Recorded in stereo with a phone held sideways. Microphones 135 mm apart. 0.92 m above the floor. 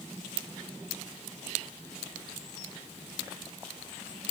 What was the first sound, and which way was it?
Only background noise.